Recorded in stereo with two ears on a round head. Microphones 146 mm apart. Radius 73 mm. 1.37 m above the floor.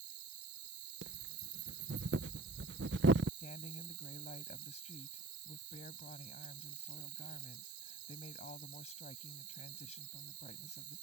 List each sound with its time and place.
0.0 s an insect: 70° right (ahead or behind)
1.0 s breathing: 75° right (ahead or behind)
3.4 s a woman speaking: 40° left (ahead or behind)